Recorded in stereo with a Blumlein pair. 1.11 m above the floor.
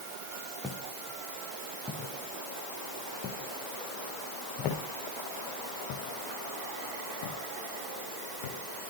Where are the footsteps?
5° left, 4.5 m; by 8.6 s 55° left, 5.5 m.